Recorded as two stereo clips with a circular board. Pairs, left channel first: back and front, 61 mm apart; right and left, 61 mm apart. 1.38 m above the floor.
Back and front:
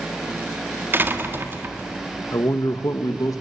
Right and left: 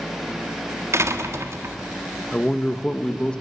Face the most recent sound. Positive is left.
turn(degrees=-165)